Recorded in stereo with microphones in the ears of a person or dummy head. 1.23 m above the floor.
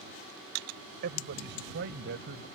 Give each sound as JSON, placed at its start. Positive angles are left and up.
{"t": 1.0, "sound": "a man speaking", "side_deg": -55}